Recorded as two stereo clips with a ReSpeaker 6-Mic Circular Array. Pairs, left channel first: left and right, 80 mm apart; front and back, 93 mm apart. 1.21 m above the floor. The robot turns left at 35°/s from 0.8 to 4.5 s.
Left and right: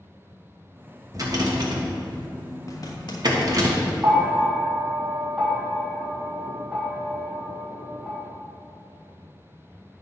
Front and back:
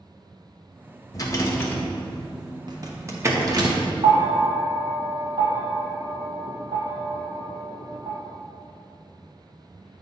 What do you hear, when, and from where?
1.1 s a rattle: 45° right, 1.2 m; by 3.7 s 135° right, 1.2 m
2.7 s a zipper: 140° left, 1.1 m; by 3.9 s 95° left, 1.1 m
4.0 s a bell: 160° right, 1.4 m; by 8.2 s 175° right, 1.4 m